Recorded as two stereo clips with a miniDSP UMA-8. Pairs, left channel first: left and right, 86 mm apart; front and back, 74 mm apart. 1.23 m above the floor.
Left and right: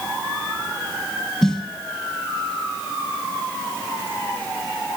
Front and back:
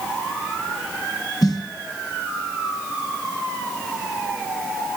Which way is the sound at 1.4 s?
5° left.